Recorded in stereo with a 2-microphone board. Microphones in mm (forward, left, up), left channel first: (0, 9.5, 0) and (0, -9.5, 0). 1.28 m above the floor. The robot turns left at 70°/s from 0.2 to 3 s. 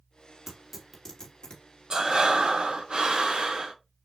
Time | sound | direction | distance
0.5 | tearing paper | 30° right (ahead or behind) | 1.7 m
1.9 | breathing | 35° right | 0.8 m